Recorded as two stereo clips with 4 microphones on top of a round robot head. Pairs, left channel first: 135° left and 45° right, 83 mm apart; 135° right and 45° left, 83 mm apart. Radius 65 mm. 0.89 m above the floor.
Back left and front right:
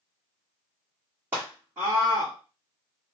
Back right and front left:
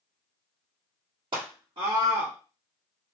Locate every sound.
1.3 s a scream: 20° left, 1.6 m